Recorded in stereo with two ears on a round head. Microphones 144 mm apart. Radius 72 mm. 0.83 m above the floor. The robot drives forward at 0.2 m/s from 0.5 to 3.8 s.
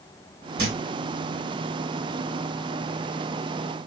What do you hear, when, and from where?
0.6 s a thud: 65° right (ahead or behind), 1.5 m